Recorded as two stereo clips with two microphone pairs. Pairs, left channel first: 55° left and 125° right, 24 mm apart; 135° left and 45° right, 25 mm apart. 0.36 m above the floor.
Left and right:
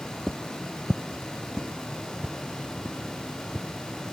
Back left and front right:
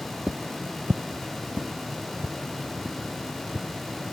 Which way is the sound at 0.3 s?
25° right.